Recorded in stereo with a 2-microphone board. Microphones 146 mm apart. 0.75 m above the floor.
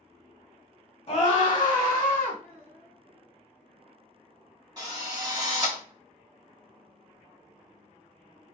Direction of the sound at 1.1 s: 35° left (ahead or behind).